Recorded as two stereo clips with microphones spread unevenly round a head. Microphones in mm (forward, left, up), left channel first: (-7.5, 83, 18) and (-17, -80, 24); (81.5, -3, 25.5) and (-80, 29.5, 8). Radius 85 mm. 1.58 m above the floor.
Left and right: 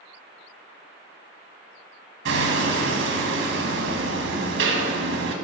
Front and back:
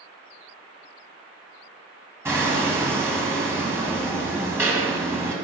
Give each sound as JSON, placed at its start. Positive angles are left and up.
{"t": 2.2, "sound": "hammering", "azimuth_deg": -115, "distance_m": 1.6}